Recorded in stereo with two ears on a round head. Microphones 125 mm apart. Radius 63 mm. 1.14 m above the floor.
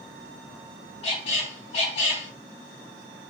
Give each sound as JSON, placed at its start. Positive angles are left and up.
{"t": 1.0, "sound": "a squeak", "side_deg": 45, "distance_m": 1.3}